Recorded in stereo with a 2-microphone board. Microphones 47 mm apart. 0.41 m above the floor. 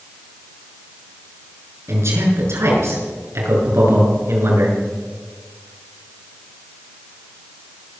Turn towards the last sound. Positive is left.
turn(degrees=-75)  # may be behind; listen again after turning